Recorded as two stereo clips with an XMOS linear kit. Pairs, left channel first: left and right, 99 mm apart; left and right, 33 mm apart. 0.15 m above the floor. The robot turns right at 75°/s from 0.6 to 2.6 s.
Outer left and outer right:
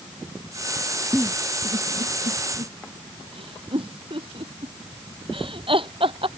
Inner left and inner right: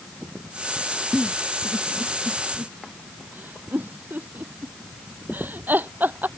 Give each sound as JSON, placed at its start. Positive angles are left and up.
{"t": 1.1, "sound": "a giggle", "side_deg": 0}